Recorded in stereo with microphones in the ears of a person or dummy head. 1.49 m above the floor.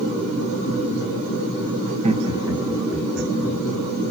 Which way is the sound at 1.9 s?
40° right (ahead or behind).